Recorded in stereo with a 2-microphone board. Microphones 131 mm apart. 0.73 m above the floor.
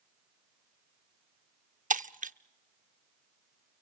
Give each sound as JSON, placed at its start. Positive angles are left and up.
{"t": 1.9, "sound": "breaking glass", "side_deg": -75, "distance_m": 0.6}